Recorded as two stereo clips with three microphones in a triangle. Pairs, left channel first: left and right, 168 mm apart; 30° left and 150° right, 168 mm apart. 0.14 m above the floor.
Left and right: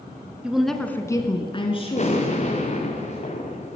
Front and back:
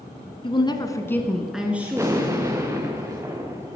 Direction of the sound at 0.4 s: 10° right.